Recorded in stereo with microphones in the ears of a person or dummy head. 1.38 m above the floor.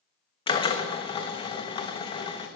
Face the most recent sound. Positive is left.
turn(degrees=20)  # may be behind; listen again after turning